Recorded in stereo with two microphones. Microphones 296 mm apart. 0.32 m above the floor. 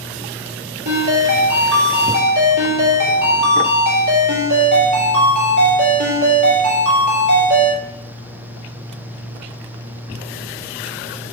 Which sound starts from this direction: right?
A ringtone, at 0.8 s.